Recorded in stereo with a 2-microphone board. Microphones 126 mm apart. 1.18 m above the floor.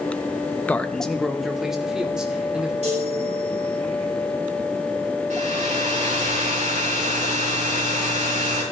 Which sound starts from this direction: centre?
A man speaking, at 0.7 s.